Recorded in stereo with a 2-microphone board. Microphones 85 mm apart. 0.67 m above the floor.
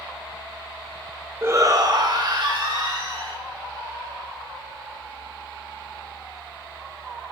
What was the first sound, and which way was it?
A shout, 25° right (ahead or behind).